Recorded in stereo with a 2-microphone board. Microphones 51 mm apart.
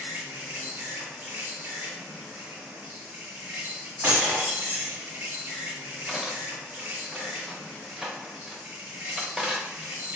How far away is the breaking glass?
About 1.1 m.